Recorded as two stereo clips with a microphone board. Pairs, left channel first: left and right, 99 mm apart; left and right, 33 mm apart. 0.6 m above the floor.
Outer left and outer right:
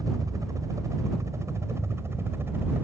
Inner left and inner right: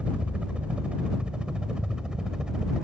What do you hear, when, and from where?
0.0 s a helicopter: 30° right (ahead or behind); by 2.8 s 20° right (ahead or behind)